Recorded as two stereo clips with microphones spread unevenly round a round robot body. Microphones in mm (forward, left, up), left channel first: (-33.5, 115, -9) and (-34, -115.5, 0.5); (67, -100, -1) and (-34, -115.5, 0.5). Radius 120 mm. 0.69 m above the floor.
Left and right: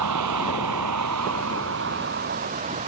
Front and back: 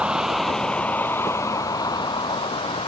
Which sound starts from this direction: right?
A vehicle, at 0.0 s.